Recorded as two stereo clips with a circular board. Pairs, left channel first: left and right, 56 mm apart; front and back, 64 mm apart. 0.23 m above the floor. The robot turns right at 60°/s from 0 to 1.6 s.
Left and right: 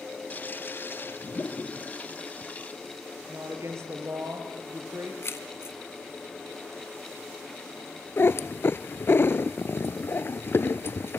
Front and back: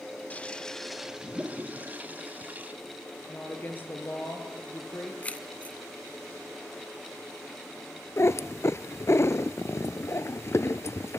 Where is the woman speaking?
60° right, 4.5 m.